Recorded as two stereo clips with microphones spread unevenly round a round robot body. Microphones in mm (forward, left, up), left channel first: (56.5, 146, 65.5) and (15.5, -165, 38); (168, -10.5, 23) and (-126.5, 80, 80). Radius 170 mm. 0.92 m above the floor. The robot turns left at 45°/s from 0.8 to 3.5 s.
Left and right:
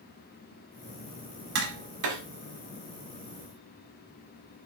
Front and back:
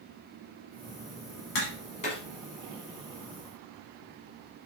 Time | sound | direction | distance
1.6 | tapping | 70° right | 1.0 m